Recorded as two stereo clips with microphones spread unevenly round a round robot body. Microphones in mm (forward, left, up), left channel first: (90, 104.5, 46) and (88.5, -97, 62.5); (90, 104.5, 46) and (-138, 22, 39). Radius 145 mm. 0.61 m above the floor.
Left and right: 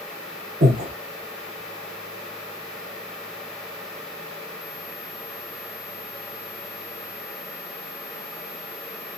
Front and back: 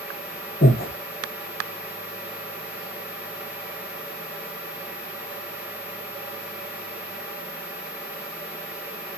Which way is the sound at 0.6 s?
40° right.